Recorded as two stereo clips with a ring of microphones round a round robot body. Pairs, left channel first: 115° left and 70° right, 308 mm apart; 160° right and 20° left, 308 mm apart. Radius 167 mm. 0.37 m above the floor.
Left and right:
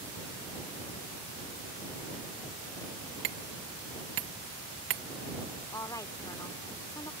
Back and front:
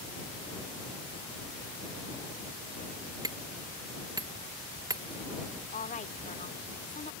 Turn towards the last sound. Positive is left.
turn(degrees=180)